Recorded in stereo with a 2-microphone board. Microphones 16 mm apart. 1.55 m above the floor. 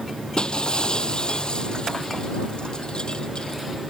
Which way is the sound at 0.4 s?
70° left (ahead or behind).